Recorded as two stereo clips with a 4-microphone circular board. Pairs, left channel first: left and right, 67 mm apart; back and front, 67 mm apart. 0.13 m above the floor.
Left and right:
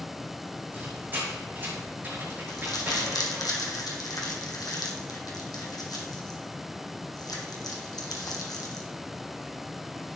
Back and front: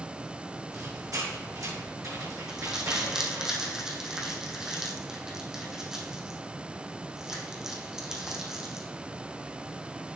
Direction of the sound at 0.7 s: 30° right.